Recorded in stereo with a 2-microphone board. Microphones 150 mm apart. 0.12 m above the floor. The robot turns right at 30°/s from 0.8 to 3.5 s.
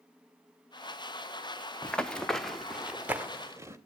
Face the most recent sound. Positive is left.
turn(degrees=-15)  # may be behind; listen again after turning